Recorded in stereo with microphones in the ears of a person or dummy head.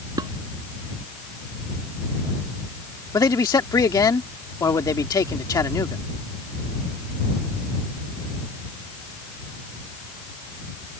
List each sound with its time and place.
0.2 s dishes clattering: 20° right (ahead or behind)
3.1 s a man speaking: 20° left (ahead or behind)